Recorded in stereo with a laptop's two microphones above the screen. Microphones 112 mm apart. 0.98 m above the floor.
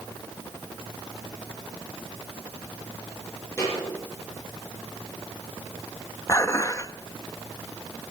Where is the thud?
25° left (ahead or behind), 8.5 m.